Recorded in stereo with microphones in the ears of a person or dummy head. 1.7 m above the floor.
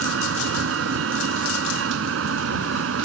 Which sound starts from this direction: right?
A vehicle, at 0.0 s.